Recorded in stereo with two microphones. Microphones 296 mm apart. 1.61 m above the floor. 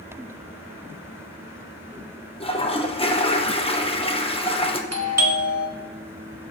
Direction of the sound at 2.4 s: 20° left (ahead or behind).